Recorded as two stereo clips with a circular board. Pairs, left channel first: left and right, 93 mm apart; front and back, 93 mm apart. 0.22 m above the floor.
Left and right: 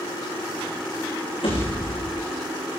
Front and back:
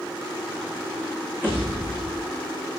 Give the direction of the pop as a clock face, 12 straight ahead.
8 o'clock.